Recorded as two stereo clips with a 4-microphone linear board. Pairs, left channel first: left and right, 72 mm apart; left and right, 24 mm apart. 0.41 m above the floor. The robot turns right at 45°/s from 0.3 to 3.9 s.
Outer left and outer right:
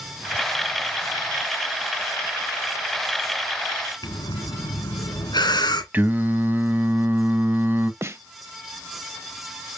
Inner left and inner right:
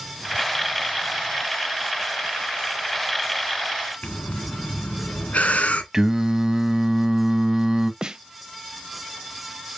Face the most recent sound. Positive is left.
turn(degrees=-35)  # may be behind; listen again after turning